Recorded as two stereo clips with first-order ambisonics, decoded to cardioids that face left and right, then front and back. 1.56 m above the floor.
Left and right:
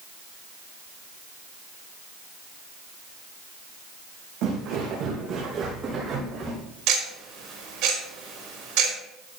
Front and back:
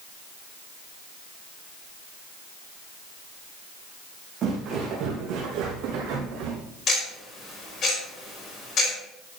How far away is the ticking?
About 4.5 m.